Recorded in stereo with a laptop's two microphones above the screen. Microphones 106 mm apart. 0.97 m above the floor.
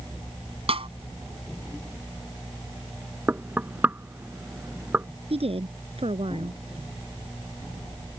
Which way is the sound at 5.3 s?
65° right (ahead or behind).